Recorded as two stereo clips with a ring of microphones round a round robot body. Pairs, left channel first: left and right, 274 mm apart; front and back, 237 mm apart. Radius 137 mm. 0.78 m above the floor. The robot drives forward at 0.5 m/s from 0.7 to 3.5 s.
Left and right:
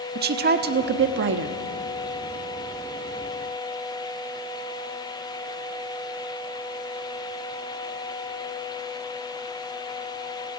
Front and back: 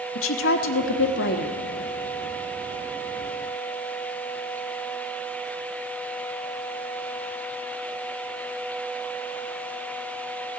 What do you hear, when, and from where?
0.1 s a woman speaking: 35° right, 1.3 m; by 1.6 s 55° right, 1.1 m